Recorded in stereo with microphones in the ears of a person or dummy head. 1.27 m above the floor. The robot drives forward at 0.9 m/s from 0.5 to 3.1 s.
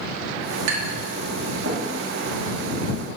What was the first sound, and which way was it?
Tapping, 80° right.